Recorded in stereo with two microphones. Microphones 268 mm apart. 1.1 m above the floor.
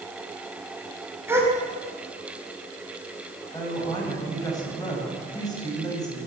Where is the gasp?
10° right (ahead or behind), 4.5 m.